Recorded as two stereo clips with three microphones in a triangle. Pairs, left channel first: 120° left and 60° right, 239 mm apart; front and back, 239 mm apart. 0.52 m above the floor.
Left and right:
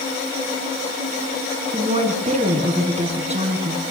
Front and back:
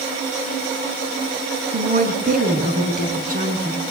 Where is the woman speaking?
125° right, 5 m.